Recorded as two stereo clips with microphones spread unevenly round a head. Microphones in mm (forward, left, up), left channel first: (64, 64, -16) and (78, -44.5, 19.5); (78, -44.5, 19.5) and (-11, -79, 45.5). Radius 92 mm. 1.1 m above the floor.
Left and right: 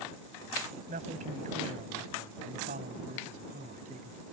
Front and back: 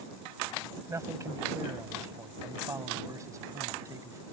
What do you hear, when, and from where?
0.9 s a man speaking: 100° right; by 4.2 s 105° right